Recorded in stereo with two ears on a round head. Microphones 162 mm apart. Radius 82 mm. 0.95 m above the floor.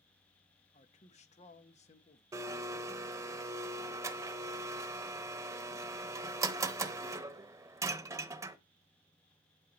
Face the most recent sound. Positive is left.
turn(degrees=-15)  # may be behind; listen again after turning